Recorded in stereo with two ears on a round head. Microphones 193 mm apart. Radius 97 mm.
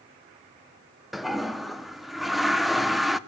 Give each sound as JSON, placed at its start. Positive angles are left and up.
{"t": 1.1, "sound": "a toilet flushing", "side_deg": 0, "distance_m": 0.7}